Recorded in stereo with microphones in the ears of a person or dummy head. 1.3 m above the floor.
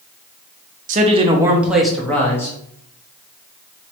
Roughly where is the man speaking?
Right.